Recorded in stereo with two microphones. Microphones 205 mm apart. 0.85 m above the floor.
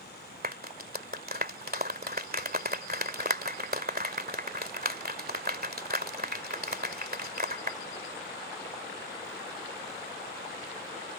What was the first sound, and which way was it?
A clap, 50° right (ahead or behind).